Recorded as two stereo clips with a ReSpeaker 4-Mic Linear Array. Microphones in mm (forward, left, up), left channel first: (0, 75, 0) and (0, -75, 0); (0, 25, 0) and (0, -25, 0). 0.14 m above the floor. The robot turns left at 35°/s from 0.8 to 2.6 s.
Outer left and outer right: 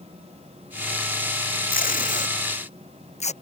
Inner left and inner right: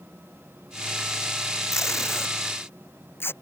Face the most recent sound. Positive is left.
turn(degrees=50)  # may be behind; listen again after turning